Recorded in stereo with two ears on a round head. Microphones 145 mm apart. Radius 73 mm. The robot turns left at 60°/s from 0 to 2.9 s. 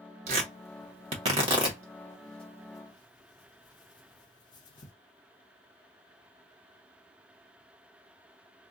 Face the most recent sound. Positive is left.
turn(degrees=30)  # may be behind; listen again after turning